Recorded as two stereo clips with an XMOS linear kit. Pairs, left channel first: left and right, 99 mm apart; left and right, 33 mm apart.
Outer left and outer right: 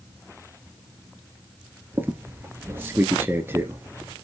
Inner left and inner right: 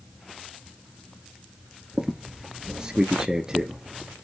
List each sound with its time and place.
1.9 s a squeak: 25° right (ahead or behind), 1.9 m